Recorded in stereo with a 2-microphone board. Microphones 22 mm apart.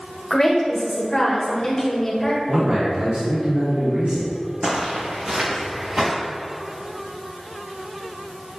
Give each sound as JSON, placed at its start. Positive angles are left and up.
{"t": 0.3, "sound": "a woman speaking", "side_deg": 25, "distance_m": 1.6}
{"t": 2.5, "sound": "a man speaking", "side_deg": -60, "distance_m": 2.0}
{"t": 4.6, "sound": "footsteps", "side_deg": -45, "distance_m": 1.5}